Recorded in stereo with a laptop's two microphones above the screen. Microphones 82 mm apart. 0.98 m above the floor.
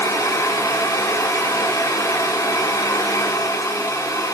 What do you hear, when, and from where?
0.0 s a fan: 40° left (ahead or behind), 0.8 m